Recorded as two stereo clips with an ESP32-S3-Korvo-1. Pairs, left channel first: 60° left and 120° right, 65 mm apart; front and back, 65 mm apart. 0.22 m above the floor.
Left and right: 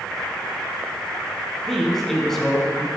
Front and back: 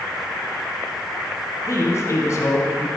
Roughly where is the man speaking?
Ahead right.